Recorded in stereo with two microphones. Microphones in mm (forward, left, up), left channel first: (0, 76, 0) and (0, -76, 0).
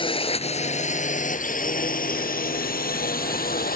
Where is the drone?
35° left (ahead or behind); by 3.8 s 75° left (ahead or behind).